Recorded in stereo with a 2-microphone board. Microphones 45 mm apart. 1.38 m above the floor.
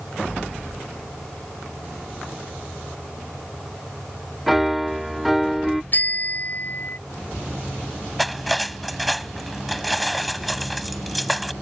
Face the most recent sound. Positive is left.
turn(degrees=0)  # may be behind; listen again after turning